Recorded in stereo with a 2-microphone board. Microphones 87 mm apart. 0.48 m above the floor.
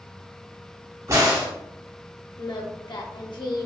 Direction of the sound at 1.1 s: 45° right (ahead or behind).